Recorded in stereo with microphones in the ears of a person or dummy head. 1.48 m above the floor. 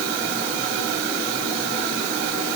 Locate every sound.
Only background noise.